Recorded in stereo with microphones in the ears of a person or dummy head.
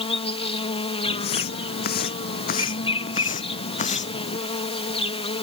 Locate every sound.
0.0 s an insect: 30° left (ahead or behind)
1.1 s footsteps: 55° left (ahead or behind); by 4.4 s 35° left (ahead or behind)